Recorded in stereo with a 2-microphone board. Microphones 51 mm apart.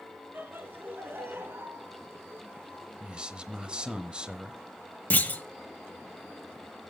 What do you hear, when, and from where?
0.3 s laughter: 45° right (ahead or behind), 4 m; by 4.0 s 65° right (ahead or behind), 3 m
3.0 s a man speaking: 20° right (ahead or behind), 0.9 m
5.1 s a clunk: 35° left (ahead or behind), 0.8 m